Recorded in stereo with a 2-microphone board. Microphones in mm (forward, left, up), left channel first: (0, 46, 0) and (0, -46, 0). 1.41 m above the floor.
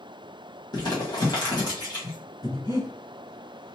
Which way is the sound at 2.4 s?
45° left (ahead or behind).